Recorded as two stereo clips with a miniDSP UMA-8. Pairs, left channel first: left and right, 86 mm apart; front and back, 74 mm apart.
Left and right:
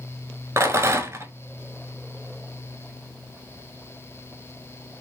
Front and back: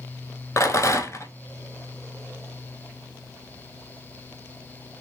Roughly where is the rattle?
Ahead right.